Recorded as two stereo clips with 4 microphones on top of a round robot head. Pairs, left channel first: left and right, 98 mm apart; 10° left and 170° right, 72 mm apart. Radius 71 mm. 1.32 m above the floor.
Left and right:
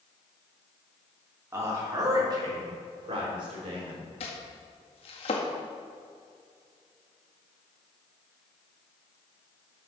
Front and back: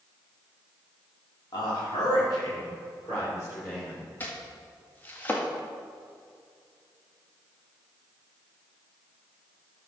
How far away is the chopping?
About 1.8 m.